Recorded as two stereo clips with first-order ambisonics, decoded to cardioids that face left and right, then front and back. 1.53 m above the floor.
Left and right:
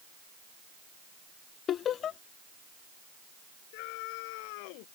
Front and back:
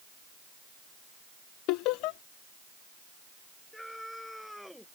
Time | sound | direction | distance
1.7 | laughter | 30° left | ?
3.7 | a scream | 90° left | ?